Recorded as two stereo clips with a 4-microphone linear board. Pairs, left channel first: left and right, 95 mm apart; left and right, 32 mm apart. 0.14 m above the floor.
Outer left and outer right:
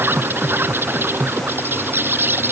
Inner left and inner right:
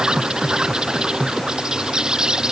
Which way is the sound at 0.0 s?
25° right (ahead or behind).